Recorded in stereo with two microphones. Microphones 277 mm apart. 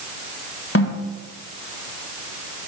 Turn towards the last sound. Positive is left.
turn(degrees=55)  # may be behind; listen again after turning